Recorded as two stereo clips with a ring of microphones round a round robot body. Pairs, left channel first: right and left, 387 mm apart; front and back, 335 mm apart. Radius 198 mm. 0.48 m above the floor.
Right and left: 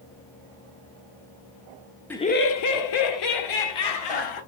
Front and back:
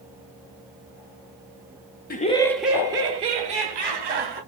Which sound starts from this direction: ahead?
Laughter, at 2.1 s.